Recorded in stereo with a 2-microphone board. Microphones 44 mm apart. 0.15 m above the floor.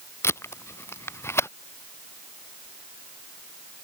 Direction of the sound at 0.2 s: 80° left.